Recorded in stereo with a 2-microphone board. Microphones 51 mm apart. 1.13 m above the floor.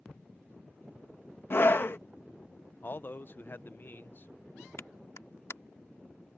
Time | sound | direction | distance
1.5 | a scream | 50° left (ahead or behind) | ?
2.8 | a man speaking | 45° left (ahead or behind) | ?
4.8 | a clap | 70° left (ahead or behind) | ?